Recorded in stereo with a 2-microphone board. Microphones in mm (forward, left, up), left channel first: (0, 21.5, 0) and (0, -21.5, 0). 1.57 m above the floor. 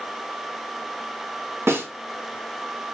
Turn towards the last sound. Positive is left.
turn(degrees=-80)